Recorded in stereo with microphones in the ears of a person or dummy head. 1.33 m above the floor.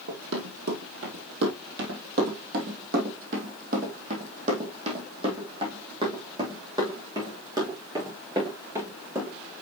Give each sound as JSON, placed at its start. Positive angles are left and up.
{"t": 0.1, "sound": "running footsteps", "side_deg": -65, "distance_m": 3.0}